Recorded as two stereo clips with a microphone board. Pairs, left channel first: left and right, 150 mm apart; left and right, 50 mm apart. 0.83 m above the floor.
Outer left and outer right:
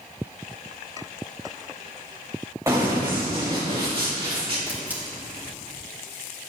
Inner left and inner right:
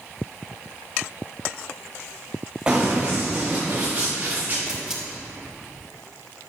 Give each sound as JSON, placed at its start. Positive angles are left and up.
{"t": 2.7, "sound": "running footsteps", "side_deg": -20, "distance_m": 3.5}
{"t": 4.7, "sound": "a camera shutter", "side_deg": -10, "distance_m": 3.0}